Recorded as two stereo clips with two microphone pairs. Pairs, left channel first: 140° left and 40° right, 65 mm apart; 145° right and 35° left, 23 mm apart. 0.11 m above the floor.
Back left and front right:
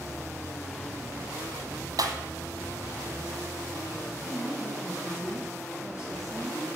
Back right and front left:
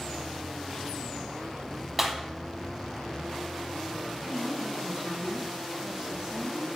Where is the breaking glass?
45° right, 1.3 m.